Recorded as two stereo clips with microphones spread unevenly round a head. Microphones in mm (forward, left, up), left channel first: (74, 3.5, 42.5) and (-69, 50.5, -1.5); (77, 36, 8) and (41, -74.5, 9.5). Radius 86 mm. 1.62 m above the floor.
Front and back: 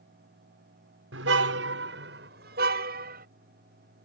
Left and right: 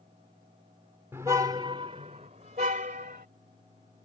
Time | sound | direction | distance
1.1 | a car horn | 175° left | ?